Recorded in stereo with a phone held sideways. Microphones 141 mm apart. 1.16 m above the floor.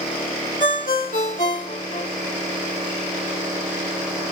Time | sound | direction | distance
0.6 | a ringtone | 65° left (ahead or behind) | 2 m